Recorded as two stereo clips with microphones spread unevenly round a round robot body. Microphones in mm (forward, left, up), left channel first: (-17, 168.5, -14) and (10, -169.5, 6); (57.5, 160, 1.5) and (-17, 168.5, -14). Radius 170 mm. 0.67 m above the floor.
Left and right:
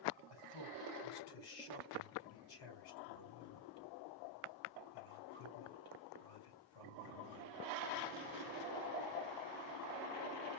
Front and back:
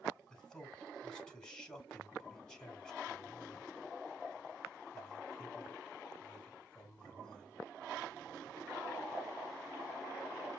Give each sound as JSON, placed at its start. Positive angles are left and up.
{"t": 0.3, "sound": "a man speaking", "azimuth_deg": 75, "distance_m": 4.5}